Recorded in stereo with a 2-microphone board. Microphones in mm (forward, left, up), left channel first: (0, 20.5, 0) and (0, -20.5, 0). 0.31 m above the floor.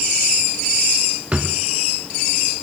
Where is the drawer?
30° right (ahead or behind), 1.0 m.